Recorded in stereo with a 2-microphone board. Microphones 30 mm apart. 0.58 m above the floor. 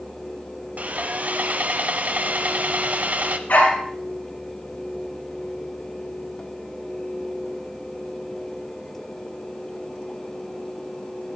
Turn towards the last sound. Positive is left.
turn(degrees=85)